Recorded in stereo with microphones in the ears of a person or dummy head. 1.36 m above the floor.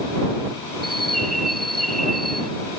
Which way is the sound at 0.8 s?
45° right (ahead or behind).